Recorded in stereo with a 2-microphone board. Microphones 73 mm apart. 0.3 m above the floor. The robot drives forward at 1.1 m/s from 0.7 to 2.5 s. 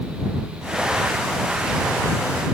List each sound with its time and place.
Only background noise.